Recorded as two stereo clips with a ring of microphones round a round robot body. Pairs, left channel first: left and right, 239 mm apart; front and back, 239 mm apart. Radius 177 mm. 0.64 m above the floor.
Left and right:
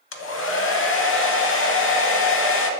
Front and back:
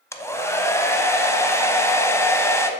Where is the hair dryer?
75° left, 0.7 m.